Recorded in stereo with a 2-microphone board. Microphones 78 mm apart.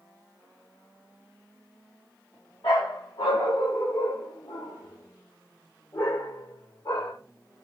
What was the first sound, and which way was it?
A dog barking, 80° left.